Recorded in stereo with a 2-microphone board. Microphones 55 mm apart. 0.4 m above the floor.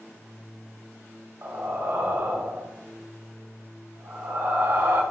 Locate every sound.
1.4 s breathing: 45° right (ahead or behind), 1.6 m